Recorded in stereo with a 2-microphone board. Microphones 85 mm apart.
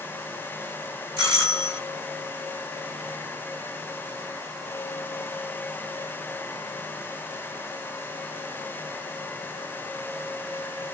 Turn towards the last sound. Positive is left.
turn(degrees=25)  # may be behind; listen again after turning